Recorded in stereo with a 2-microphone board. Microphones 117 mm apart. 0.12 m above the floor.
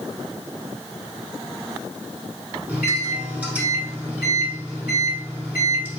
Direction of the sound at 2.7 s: 15° right (ahead or behind).